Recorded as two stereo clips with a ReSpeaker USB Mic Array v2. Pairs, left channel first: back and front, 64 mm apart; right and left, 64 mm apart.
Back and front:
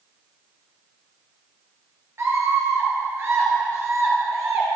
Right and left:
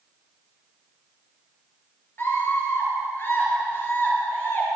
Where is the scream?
40° right, 4 m.